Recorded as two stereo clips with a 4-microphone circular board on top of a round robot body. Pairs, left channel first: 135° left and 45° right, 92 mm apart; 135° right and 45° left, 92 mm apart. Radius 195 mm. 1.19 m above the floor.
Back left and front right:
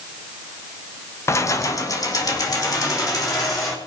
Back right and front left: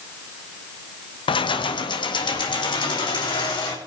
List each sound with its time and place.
1.3 s keys jangling: 165° right, 0.7 m; by 3.8 s 175° right, 3.5 m